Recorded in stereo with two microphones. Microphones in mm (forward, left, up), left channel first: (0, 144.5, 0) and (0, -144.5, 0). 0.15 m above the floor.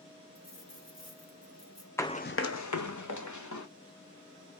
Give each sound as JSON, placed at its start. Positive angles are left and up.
{"t": 0.3, "sound": "a dropped coin", "side_deg": 65, "distance_m": 1.4}
{"t": 2.0, "sound": "running footsteps", "side_deg": 10, "distance_m": 0.5}